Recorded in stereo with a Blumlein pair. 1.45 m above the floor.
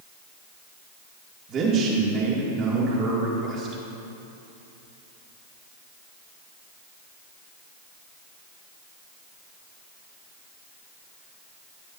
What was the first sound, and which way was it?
A man speaking, 30° right.